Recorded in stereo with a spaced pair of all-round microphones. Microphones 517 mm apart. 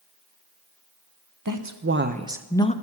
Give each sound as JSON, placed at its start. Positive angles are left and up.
{"t": 1.4, "sound": "a woman speaking", "side_deg": -35, "distance_m": 0.9}